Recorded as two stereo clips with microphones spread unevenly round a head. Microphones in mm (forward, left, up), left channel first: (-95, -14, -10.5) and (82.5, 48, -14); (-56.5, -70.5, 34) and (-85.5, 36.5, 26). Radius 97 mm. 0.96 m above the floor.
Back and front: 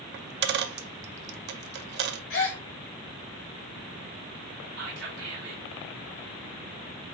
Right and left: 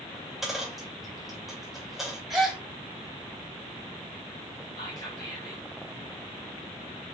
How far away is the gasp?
About 1.6 m.